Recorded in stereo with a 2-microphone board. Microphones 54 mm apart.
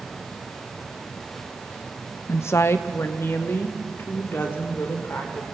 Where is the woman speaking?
60° left (ahead or behind), 0.6 m; by 5.5 s 45° left (ahead or behind), 3.5 m.